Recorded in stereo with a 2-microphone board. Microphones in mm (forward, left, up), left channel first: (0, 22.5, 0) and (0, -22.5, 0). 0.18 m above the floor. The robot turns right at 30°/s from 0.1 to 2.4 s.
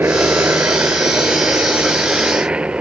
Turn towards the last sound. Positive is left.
turn(degrees=-30)  # may be behind; listen again after turning